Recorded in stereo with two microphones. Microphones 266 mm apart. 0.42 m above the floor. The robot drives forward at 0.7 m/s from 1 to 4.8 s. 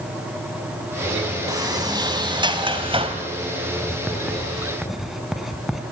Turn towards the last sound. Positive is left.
turn(degrees=0)  # may be behind; listen again after turning